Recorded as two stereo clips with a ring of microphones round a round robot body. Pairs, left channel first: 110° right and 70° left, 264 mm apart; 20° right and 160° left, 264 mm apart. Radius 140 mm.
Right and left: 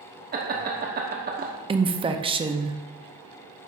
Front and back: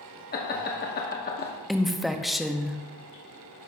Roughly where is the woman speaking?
Left.